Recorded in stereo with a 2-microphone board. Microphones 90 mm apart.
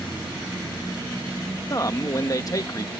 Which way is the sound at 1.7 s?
40° left (ahead or behind).